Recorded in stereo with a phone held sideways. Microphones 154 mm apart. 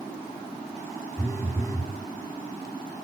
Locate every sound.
1.2 s a phone buzzing: 20° left (ahead or behind), 0.6 m